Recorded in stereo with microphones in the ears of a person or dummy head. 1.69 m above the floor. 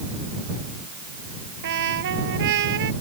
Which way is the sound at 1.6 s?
60° right (ahead or behind).